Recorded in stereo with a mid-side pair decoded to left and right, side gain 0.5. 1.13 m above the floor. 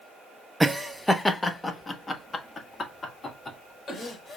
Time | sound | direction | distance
0.6 | laughter | 5° right | 0.6 m